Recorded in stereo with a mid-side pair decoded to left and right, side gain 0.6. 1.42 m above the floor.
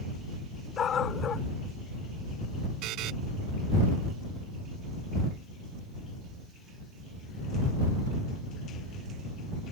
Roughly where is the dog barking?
Ahead left.